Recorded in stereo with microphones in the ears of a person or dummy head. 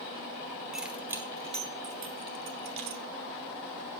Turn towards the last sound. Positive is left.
turn(degrees=-60)  # may be behind; listen again after turning